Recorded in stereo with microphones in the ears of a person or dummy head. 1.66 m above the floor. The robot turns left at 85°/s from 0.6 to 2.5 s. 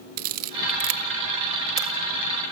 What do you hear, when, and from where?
0.2 s a camera shutter: 45° right (ahead or behind), 1.7 m; by 1.9 s 15° right (ahead or behind), 1.7 m